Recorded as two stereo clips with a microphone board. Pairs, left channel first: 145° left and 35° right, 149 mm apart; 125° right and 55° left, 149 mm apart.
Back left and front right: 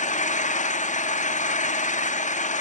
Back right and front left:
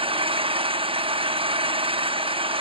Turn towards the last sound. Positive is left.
turn(degrees=110)